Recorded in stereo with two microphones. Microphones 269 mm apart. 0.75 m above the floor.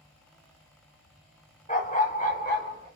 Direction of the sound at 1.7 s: 30° left (ahead or behind).